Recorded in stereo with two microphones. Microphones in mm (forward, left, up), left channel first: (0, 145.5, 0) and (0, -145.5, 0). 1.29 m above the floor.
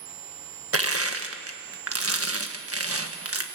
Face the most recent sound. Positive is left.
turn(degrees=-50)  # may be behind; listen again after turning